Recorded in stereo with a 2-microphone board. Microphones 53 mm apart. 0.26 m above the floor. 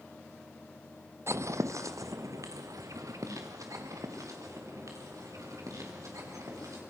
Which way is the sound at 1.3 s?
60° right (ahead or behind).